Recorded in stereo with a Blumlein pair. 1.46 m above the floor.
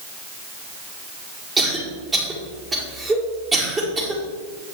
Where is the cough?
15° right, 4.5 m.